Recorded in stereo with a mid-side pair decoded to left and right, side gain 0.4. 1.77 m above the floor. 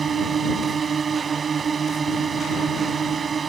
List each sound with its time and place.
0.0 s a drone: 50° right